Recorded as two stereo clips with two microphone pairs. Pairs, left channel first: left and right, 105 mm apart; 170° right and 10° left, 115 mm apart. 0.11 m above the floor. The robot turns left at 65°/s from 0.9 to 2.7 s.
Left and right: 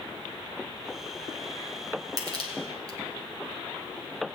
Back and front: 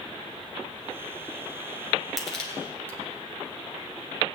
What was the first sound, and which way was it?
Crushing, 75° right.